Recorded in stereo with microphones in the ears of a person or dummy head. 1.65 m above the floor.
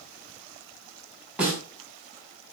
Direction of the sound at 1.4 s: 10° right (ahead or behind).